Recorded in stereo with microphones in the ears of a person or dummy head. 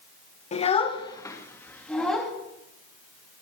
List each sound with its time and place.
0.5 s a child speaking: 35° left (ahead or behind), 1.0 m; by 2.3 s centre (ahead or behind), 1.9 m